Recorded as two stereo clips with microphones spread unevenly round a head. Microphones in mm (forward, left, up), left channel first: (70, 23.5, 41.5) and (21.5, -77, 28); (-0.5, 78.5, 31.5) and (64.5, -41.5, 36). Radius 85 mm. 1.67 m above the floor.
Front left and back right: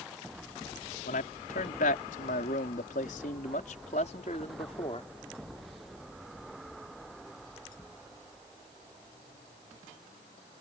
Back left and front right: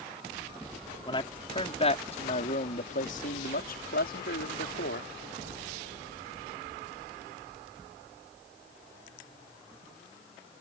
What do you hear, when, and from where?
1.1 s a man speaking: 60° left; by 5.1 s 120° left